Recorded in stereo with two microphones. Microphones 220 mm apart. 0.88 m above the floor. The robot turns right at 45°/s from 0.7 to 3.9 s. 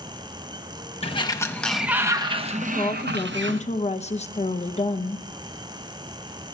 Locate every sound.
1.0 s a sliding door: 150° left, 0.9 m; by 3.6 s 95° right, 0.9 m
2.6 s a woman speaking: 55° left, 0.7 m; by 5.2 s 115° left, 0.7 m